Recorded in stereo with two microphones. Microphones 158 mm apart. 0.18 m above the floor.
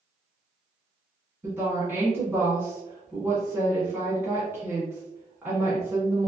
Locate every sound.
1.4 s a woman speaking: 15° right (ahead or behind), 1.4 m